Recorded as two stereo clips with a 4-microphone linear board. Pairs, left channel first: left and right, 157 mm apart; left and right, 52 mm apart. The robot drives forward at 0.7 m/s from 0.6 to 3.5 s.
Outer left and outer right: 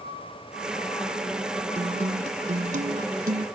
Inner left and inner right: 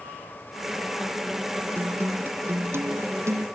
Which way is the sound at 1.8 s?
40° right (ahead or behind).